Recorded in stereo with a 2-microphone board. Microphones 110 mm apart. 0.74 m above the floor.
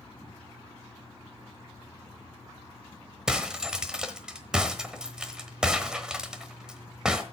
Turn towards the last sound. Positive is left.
turn(degrees=-5)  # may be behind; listen again after turning